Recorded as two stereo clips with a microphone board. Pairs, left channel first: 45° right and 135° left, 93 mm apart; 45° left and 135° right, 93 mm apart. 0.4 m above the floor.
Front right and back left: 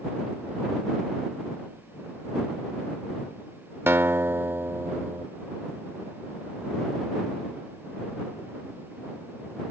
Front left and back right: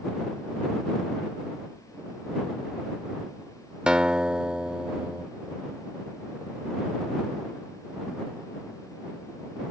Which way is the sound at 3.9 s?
155° left.